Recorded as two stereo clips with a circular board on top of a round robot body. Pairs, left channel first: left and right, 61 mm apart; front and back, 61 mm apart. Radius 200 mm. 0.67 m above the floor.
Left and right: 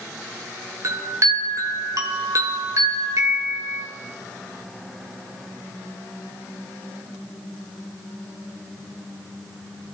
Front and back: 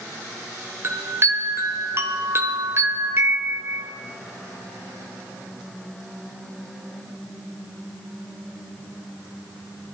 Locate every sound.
0.8 s a chime: 130° right, 1.1 m